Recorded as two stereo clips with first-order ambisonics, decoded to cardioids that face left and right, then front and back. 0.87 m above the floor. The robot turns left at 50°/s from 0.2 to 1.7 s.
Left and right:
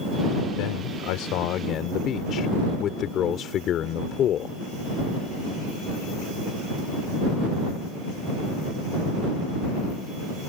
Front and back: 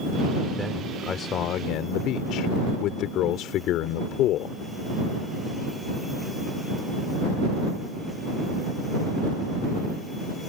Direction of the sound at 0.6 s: 95° left.